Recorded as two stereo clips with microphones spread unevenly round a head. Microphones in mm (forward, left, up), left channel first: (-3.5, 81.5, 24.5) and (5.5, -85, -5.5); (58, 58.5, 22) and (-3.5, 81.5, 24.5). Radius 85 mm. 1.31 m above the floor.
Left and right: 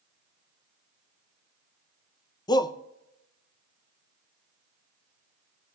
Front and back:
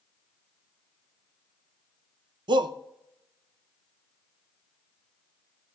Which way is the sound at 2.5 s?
160° left.